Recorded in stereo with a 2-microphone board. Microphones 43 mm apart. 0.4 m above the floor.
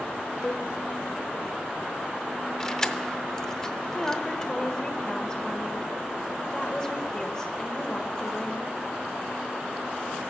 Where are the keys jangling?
15° left (ahead or behind), 0.7 m.